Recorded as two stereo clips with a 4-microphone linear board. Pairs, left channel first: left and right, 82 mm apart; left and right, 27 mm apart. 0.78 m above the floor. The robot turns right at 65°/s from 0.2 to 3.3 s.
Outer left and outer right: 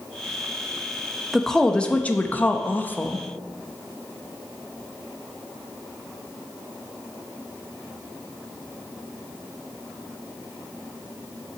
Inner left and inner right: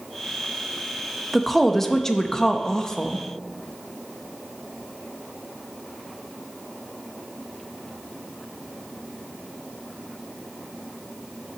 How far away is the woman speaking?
About 0.6 m.